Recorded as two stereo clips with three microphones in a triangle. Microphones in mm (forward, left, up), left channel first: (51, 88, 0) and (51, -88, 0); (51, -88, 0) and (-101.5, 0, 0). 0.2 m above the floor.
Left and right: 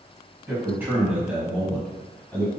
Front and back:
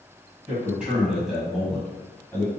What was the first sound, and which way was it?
A man speaking, 145° right.